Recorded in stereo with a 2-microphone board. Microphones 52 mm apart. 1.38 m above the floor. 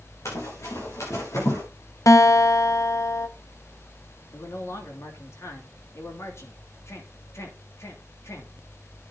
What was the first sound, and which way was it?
Running footsteps, 70° left (ahead or behind).